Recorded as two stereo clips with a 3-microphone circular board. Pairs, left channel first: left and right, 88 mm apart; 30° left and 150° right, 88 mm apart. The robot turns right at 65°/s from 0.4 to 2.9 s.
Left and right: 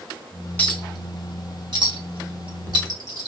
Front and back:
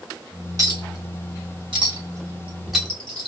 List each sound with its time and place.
0.6 s a clink: 160° left, 1.0 m; by 3.3 s 50° right, 1.0 m